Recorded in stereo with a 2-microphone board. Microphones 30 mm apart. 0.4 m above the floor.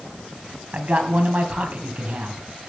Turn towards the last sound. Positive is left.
turn(degrees=-50)  # may be behind; listen again after turning